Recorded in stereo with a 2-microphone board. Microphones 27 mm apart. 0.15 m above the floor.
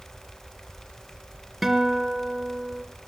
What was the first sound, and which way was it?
A guitar, 5° right (ahead or behind).